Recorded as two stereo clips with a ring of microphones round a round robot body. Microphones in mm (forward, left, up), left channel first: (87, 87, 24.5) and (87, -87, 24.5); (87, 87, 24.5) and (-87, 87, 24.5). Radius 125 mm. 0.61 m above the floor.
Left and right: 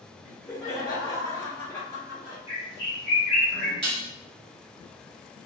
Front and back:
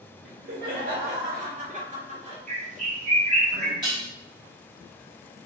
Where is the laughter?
Straight behind, 1.9 m; by 2.4 s 150° left, 1.2 m.